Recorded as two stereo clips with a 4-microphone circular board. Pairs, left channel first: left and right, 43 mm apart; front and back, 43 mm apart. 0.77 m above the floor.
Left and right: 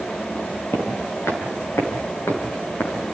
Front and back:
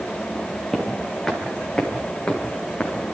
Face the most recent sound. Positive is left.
turn(degrees=60)